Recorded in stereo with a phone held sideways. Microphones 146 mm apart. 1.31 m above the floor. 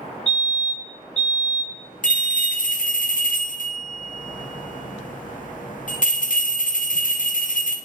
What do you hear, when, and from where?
0.3 s a fire alarm: 50° left (ahead or behind), 3 m
2.0 s a bell: 65° left (ahead or behind), 0.9 m